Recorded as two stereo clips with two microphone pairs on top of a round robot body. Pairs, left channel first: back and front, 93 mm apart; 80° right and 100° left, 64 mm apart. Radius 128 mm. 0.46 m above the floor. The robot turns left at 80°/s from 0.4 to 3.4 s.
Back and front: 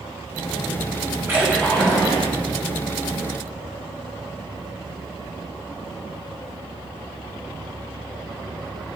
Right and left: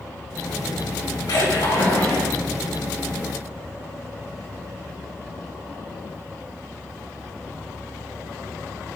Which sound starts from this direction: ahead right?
A splash, at 1.3 s.